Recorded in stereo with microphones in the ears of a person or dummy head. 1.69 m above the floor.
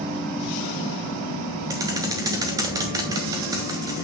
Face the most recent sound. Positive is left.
turn(degrees=-15)  # may be behind; listen again after turning